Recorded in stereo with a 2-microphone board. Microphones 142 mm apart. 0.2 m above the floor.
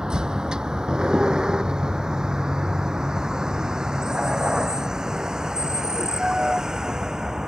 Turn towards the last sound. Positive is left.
turn(degrees=-5)  # may be behind; listen again after turning